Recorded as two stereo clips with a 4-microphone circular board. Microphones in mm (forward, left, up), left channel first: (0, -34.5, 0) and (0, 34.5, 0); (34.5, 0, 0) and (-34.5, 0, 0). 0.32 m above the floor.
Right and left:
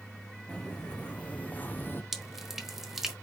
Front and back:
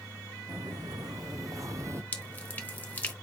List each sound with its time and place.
0.5 s footsteps: 160° right, 1.4 m; by 2.0 s 140° right, 0.6 m
2.1 s dripping: 15° left, 1.0 m